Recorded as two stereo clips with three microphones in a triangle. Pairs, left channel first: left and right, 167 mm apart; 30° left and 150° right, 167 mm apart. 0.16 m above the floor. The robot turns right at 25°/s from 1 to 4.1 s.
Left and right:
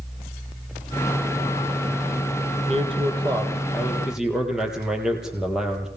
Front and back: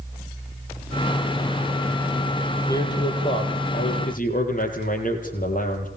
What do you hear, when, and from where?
2.7 s a man speaking: 40° right, 5.5 m; by 5.9 s 5° right, 5.5 m